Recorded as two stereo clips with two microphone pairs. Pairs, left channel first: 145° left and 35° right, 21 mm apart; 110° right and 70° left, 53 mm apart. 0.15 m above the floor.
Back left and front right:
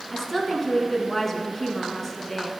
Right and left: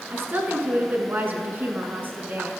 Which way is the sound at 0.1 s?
75° left.